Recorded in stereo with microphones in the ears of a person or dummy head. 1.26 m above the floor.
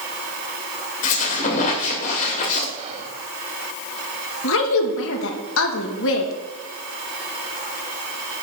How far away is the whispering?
About 2.0 m.